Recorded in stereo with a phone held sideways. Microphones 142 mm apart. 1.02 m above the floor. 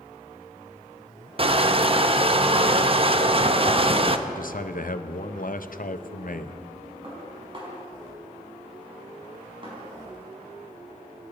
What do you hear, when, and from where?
1.4 s crushing: 40° right (ahead or behind), 0.7 m
4.3 s a man speaking: 65° left (ahead or behind), 0.8 m
7.0 s dishes clattering: 35° right (ahead or behind), 5 m